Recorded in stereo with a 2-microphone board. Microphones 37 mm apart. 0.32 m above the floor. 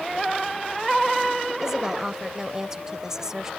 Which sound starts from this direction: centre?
A woman speaking, at 1.6 s.